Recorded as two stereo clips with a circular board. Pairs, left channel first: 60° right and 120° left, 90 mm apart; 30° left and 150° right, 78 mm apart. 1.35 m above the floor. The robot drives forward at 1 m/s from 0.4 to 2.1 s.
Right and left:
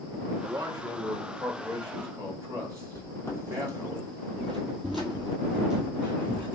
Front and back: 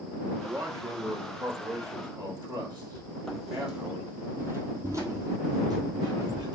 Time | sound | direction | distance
0.4 | a man speaking | 165° left | 0.9 m
3.0 | footsteps | 40° right | 1.6 m